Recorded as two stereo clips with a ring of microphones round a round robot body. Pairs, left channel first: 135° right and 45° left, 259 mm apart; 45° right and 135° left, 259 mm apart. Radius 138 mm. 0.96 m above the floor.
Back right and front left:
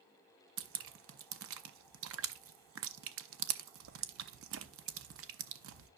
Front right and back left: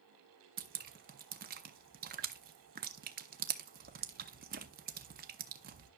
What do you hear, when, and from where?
0.6 s dripping: 80° left, 0.5 m